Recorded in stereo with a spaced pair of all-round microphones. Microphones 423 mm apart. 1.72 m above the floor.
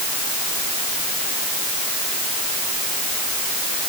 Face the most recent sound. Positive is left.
No sound to turn to.